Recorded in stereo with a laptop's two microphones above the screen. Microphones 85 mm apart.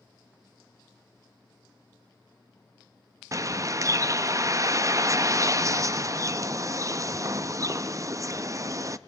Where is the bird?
40° right (ahead or behind), 0.5 m.